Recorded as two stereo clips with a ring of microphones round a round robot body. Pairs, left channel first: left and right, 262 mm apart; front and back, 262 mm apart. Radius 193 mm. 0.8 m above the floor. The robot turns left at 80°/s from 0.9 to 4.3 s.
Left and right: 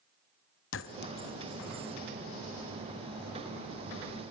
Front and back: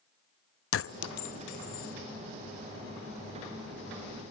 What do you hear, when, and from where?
0.7 s a clink: 40° left, 0.7 m; by 1.9 s 40° right, 0.7 m